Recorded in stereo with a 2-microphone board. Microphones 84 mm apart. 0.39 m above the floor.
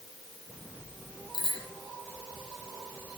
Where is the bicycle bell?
70° left (ahead or behind), 8.5 m.